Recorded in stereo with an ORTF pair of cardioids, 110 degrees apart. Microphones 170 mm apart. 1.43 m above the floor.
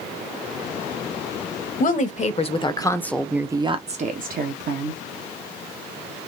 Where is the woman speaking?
50° left, 1.1 m; by 5.0 s 70° right, 1.1 m.